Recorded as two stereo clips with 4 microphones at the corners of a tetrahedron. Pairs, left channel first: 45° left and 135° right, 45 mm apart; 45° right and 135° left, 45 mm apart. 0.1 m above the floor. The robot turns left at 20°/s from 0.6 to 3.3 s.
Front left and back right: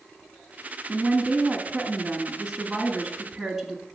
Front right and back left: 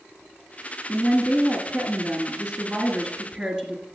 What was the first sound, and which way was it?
A woman speaking, 170° right.